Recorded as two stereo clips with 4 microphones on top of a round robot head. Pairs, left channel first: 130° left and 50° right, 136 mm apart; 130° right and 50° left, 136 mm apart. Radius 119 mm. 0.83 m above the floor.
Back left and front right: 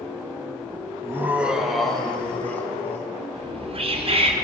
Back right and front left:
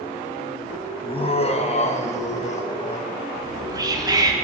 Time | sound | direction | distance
1.0 | laughter | 110° right | 0.8 m
3.3 | whispering | 10° right | 1.2 m